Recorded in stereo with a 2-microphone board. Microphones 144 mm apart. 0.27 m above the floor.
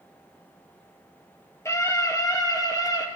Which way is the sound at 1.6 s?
20° left (ahead or behind).